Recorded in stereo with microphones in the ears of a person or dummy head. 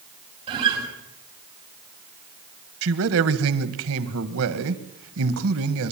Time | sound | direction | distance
0.5 | a guitar | 25° right (ahead or behind) | 5.5 m
2.8 | a man speaking | 80° right | 1.8 m